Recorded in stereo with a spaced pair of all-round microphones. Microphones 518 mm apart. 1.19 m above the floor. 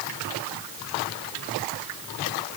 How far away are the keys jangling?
I don't hear keys jangling.